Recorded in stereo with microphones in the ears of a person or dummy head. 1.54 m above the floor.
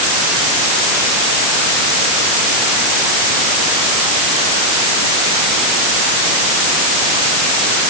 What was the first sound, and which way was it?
Only background noise.